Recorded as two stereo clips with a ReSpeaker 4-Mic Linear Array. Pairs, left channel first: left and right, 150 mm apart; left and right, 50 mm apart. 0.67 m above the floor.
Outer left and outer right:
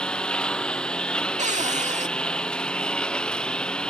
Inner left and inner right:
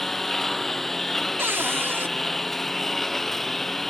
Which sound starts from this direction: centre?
A lawn mower, at 0.0 s.